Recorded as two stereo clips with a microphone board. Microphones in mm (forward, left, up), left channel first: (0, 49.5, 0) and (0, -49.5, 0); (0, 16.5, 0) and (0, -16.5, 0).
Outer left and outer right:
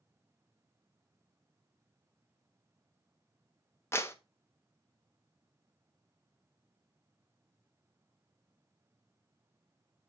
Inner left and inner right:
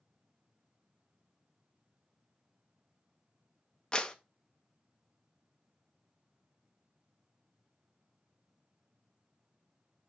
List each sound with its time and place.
3.9 s a clap: 25° left (ahead or behind), 0.8 m